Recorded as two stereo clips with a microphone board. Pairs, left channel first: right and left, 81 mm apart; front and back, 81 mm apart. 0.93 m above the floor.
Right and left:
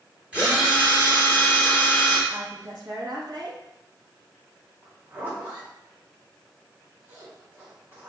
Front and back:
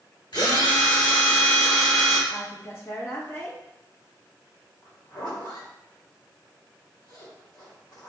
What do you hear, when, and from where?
0.3 s a drill: 15° left, 1.7 m
2.3 s a woman speaking: 55° left, 1.3 m
4.8 s a zipper: 25° left, 1.8 m